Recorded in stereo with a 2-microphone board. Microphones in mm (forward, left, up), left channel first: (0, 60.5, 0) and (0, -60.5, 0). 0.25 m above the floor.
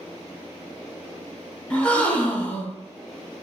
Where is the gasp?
10° left (ahead or behind), 0.7 m.